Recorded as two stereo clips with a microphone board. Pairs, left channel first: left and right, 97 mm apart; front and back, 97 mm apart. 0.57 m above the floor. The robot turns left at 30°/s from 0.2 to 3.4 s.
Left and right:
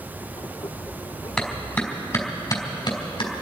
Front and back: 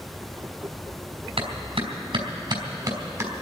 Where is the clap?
175° left, 3 m; by 3.3 s 120° left, 3 m.